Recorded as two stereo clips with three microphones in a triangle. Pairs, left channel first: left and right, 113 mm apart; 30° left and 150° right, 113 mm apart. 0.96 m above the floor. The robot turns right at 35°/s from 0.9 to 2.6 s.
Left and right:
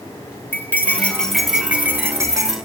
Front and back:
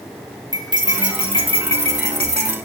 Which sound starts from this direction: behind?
Cutlery clinking, at 0.5 s.